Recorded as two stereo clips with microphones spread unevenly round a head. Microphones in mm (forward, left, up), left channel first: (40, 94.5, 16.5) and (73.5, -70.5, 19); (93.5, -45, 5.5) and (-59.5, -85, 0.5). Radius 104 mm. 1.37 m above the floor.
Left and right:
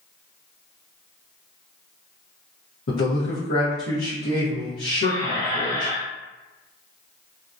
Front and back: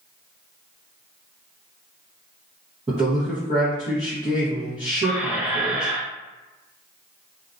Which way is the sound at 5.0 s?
125° left.